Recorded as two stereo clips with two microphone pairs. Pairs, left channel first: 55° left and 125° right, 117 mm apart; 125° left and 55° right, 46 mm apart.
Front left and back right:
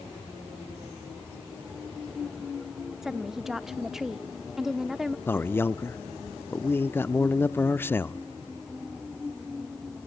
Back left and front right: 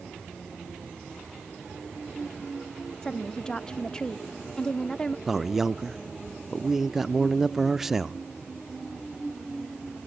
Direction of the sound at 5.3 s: 25° left.